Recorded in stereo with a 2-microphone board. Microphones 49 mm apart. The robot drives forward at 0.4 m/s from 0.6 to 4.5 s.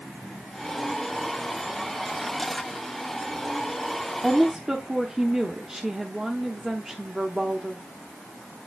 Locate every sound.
4.2 s a woman speaking: 15° right (ahead or behind), 0.8 m